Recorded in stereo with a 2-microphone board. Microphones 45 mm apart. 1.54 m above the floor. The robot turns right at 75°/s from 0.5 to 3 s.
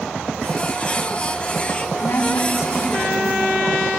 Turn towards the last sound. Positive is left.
turn(degrees=140)